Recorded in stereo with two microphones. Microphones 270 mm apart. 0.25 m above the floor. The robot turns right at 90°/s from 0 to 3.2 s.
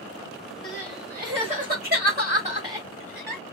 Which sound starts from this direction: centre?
Crying, at 0.6 s.